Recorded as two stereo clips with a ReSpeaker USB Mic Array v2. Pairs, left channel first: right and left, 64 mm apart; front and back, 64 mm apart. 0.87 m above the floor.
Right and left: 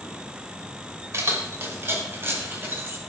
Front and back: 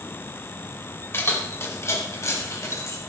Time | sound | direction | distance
1.1 | keys jangling | 50° left | 2 m